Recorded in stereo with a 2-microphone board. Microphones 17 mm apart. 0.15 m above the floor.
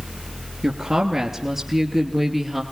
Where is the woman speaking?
35° right (ahead or behind), 3 m; by 2.6 s 10° right (ahead or behind), 3.5 m.